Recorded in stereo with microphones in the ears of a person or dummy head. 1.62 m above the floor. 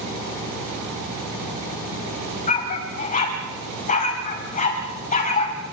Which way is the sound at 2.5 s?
40° left (ahead or behind).